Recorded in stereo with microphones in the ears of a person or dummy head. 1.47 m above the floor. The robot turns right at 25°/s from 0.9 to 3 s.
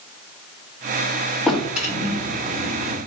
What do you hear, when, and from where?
1.5 s a drawer: straight behind, 1.9 m; by 3.0 s 145° right, 1.9 m